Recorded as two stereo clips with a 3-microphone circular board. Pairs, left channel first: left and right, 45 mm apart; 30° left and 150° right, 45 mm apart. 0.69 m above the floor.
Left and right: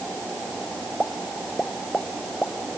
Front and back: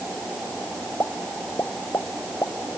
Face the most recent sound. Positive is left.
turn(degrees=20)